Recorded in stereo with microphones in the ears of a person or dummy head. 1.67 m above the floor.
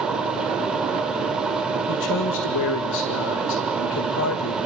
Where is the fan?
5° right (ahead or behind), 2 m.